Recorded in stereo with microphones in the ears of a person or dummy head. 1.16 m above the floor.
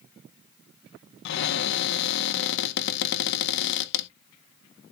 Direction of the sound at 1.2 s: 60° left (ahead or behind).